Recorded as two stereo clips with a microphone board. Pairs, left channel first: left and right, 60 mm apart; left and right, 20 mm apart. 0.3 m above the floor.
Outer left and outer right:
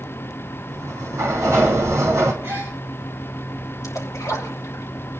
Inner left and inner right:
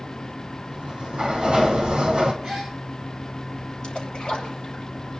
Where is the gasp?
40° right (ahead or behind), 8 m.